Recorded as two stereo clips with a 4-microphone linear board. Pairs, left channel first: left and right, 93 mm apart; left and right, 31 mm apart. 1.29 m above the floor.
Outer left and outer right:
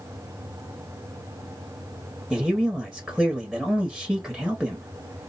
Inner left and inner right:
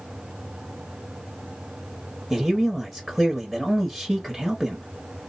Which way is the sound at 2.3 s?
5° left (ahead or behind).